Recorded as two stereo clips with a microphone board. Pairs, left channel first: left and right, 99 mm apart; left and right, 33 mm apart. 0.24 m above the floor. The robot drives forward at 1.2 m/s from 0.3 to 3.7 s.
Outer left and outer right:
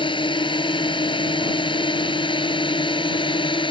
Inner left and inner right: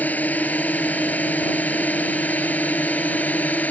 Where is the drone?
60° left (ahead or behind); by 3.7 s 55° left (ahead or behind).